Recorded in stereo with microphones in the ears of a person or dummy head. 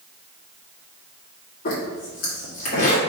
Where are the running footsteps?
No running footsteps in this recording.